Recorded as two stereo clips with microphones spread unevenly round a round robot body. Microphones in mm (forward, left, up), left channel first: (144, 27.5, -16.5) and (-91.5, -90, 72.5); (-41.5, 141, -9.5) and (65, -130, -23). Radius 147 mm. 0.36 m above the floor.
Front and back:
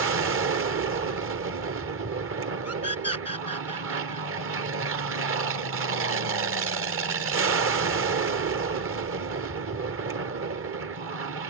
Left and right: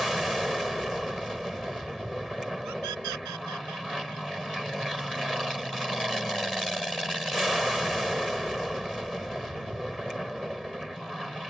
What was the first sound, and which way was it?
An aircraft, 160° right.